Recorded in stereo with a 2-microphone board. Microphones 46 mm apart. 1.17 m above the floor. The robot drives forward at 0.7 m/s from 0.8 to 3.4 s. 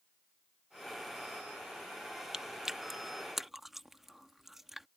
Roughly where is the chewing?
Centre.